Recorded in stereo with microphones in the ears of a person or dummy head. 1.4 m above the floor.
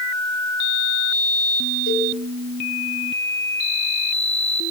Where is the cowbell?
60° left (ahead or behind), 8.5 m.